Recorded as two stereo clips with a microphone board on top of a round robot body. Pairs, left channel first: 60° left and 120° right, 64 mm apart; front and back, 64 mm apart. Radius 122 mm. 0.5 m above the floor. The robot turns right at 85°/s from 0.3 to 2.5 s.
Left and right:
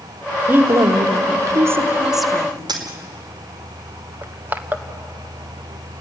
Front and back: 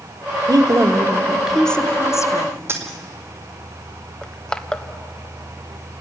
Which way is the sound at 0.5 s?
Straight behind.